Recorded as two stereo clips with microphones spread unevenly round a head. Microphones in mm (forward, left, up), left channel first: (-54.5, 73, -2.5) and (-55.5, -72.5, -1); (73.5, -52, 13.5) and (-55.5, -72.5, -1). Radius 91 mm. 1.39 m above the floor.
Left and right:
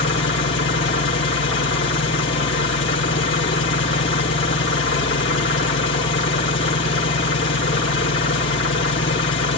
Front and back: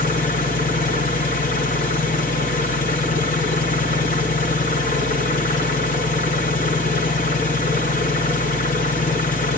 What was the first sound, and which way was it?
An engine running, 65° left.